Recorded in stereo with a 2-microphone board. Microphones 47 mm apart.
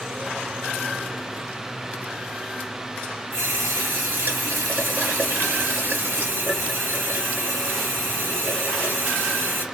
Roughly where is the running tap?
Right.